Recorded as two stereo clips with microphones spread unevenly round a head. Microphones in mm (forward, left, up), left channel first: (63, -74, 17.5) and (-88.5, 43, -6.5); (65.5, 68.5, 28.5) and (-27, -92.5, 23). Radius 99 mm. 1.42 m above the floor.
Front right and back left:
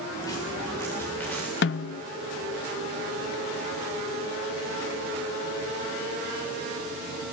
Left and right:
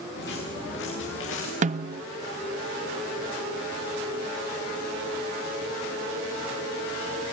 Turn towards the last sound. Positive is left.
turn(degrees=-70)